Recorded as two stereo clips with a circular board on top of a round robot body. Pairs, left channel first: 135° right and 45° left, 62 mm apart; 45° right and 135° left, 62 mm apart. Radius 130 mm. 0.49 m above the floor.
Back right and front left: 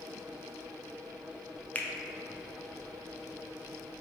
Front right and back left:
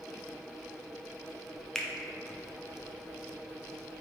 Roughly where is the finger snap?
Behind right.